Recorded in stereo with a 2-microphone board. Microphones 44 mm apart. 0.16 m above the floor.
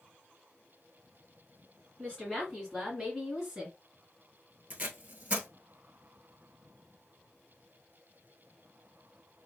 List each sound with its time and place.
2.0 s a woman speaking: 20° left (ahead or behind), 1.8 m; by 3.8 s 10° right (ahead or behind), 2 m
4.7 s tape being pulled: 35° right (ahead or behind), 1.0 m